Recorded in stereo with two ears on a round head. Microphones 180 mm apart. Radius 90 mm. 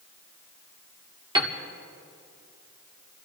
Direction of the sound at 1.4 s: 20° right (ahead or behind).